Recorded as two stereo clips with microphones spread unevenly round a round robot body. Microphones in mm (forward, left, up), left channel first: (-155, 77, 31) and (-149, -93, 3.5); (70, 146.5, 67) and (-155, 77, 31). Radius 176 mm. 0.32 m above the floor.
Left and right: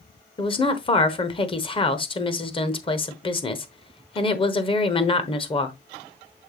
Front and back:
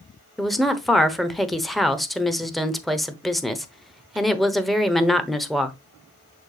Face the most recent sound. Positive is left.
turn(degrees=125)